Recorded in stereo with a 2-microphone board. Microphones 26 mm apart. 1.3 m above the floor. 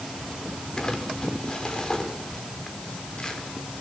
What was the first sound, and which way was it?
Crumpling, 30° left (ahead or behind).